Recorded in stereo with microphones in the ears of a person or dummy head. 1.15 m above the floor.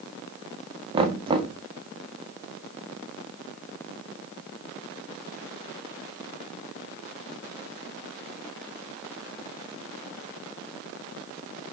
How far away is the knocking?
About 1.7 m.